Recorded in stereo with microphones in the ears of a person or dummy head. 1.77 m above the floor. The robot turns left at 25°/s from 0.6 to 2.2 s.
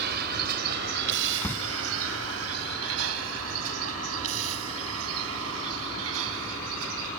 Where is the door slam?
5° left (ahead or behind); by 1.7 s 15° left (ahead or behind).